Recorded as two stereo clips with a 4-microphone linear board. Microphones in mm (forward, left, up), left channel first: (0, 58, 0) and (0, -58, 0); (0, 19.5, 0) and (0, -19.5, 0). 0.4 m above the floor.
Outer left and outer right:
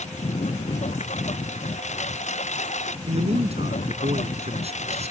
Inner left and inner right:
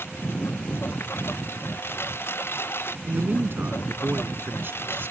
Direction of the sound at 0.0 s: 70° left (ahead or behind).